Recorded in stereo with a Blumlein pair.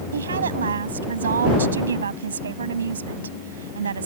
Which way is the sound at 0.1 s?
70° right.